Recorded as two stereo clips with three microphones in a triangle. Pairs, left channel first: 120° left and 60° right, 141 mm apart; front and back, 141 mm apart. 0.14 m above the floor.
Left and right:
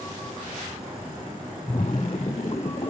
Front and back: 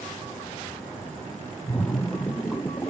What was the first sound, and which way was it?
A splash, 75° left.